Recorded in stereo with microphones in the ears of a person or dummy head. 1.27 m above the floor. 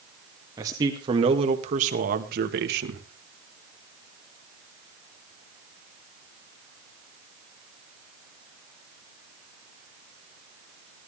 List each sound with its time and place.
0.6 s a man speaking: 25° right (ahead or behind), 2.5 m; by 3.0 s 75° right (ahead or behind), 2 m